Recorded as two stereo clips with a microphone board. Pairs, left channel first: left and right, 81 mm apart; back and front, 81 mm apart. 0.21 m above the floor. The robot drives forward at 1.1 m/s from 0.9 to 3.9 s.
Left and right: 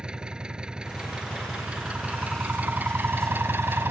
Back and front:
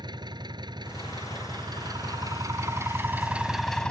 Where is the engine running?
10° right; by 3.9 s 115° right.